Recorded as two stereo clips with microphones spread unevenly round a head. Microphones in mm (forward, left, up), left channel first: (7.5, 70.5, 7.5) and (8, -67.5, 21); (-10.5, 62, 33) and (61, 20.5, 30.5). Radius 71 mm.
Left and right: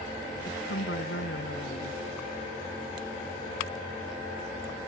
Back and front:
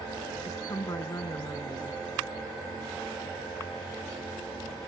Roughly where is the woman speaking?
Left.